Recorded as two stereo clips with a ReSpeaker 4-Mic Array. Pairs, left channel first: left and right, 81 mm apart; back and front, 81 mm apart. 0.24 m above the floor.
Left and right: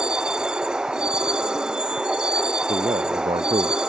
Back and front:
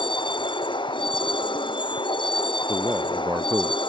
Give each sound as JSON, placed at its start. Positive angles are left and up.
{"t": 0.0, "sound": "a vehicle", "azimuth_deg": -170}
{"t": 2.7, "sound": "a man speaking", "azimuth_deg": -80}